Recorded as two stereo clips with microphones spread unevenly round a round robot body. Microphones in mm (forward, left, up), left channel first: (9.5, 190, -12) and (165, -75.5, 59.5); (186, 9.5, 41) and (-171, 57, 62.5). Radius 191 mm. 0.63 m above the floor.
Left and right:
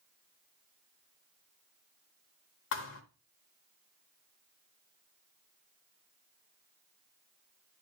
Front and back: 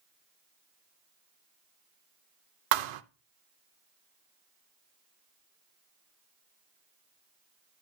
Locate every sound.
2.7 s a thud: 175° right, 0.5 m